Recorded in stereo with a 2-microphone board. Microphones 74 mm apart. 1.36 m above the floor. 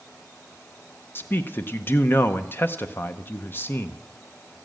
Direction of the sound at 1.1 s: 30° left (ahead or behind).